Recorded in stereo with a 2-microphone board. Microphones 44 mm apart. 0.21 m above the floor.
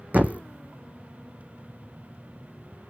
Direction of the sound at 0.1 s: 40° right (ahead or behind).